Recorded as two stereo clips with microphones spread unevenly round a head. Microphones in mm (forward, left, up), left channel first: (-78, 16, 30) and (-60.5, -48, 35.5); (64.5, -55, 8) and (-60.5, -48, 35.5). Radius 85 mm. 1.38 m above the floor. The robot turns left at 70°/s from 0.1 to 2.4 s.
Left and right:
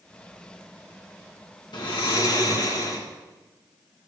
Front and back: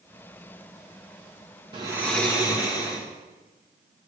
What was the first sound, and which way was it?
Snoring, 110° left.